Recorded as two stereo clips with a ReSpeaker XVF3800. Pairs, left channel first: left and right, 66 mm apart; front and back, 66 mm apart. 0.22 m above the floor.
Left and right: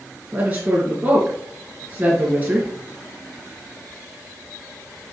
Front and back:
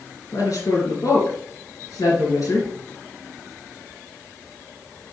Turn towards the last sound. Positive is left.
turn(degrees=-25)